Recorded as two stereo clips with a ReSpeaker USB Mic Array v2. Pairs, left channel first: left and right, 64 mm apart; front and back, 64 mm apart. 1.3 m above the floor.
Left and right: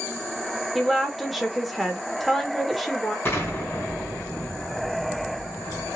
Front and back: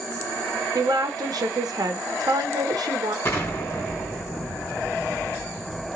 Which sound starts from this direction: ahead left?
An explosion, at 3.2 s.